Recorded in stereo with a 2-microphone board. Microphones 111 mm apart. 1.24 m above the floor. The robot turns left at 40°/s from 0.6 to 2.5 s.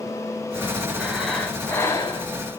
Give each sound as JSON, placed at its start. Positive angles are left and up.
{"t": 1.0, "sound": "breathing", "azimuth_deg": -170, "distance_m": 4.5}